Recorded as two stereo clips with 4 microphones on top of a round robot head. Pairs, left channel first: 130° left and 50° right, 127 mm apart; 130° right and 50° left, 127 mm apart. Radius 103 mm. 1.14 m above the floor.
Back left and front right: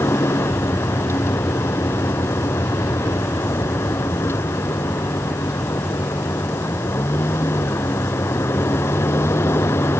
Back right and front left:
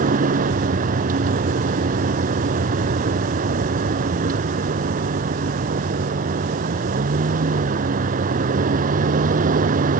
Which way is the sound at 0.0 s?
60° left.